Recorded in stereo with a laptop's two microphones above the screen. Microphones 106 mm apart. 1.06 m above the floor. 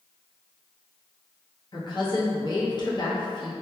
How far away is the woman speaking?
About 0.6 m.